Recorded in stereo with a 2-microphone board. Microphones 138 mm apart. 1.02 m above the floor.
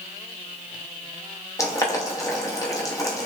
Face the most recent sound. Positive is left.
turn(degrees=25)  # may be behind; listen again after turning